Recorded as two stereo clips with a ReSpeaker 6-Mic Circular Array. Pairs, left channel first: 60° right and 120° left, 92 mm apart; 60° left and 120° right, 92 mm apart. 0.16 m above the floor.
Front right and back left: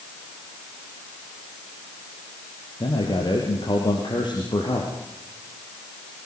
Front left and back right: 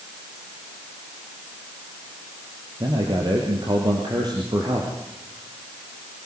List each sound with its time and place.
2.8 s a man speaking: 85° right, 3.5 m